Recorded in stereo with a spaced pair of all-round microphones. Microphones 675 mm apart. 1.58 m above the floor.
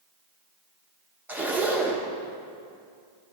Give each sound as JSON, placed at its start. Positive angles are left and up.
{"t": 1.3, "sound": "a zipper", "side_deg": 0, "distance_m": 0.9}